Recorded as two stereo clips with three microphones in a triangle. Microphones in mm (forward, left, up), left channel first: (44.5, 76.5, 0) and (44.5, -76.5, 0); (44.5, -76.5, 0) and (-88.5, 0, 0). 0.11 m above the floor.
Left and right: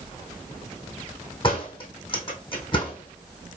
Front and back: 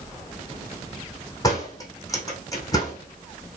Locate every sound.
1.4 s a door slam: 35° left, 4 m